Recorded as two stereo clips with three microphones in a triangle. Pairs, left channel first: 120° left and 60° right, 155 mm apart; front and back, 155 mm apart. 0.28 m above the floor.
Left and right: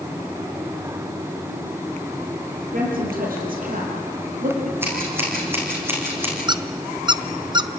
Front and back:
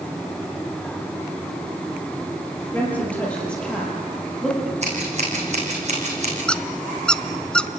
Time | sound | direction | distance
2.7 | a woman speaking | 80° right | 7 m
4.8 | scissors | 135° right | 7 m
6.5 | a squeak | 75° right | 0.8 m